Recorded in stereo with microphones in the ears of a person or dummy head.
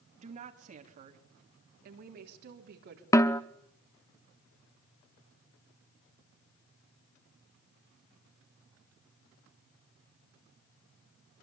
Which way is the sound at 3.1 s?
15° left (ahead or behind).